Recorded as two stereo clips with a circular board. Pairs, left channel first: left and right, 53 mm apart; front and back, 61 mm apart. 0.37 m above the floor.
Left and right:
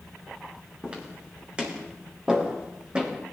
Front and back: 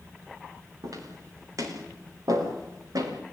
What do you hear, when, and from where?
0.8 s footsteps: 160° right, 10 m